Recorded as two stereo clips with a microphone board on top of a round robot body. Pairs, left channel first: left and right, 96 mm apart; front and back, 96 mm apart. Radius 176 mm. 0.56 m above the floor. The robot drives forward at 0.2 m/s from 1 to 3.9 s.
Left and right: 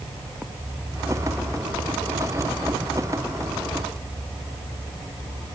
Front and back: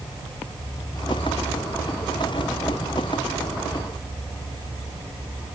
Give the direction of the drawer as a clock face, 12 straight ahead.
No drawer in this recording.